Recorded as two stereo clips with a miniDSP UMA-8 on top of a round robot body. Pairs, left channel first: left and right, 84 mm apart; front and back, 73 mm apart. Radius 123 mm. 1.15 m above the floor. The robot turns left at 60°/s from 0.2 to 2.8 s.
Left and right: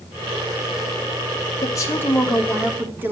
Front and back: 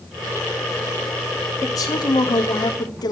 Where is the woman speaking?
50° left, 3 m; by 3.1 s 20° right, 3 m.